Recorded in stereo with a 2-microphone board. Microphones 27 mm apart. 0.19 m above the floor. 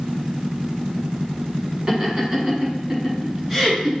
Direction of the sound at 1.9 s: 35° right (ahead or behind).